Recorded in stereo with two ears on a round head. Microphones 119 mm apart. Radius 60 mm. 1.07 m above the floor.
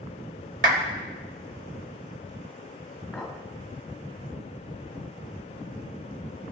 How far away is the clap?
About 3.5 m.